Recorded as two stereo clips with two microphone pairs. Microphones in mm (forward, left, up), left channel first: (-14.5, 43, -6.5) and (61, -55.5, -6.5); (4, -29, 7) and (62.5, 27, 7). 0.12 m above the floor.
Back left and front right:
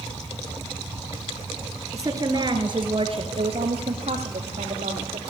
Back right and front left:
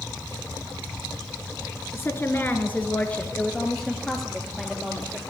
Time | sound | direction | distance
1.9 | a woman speaking | 100° right | 1.8 m